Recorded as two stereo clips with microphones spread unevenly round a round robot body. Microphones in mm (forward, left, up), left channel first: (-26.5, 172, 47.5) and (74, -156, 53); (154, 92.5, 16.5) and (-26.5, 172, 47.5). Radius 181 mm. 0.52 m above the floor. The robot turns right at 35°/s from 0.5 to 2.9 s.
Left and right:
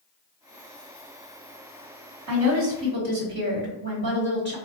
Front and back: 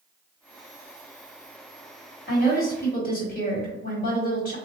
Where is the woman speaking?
45° right, 1.5 m; by 4.5 s 20° right, 1.5 m.